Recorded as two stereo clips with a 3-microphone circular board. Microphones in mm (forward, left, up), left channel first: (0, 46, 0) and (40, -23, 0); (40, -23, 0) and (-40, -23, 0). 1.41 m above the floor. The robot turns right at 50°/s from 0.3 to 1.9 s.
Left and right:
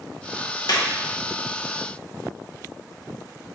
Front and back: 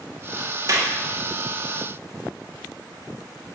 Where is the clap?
140° left, 1.2 m; by 0.9 s 155° left, 1.2 m.